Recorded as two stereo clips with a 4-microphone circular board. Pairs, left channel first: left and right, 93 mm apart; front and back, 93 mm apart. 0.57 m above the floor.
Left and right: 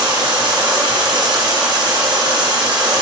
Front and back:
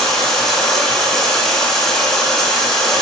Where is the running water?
85° right, 0.8 m.